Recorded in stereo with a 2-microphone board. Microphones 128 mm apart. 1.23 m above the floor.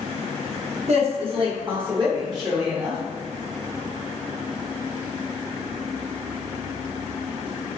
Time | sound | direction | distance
0.9 | a woman speaking | 55° right (ahead or behind) | 1.2 m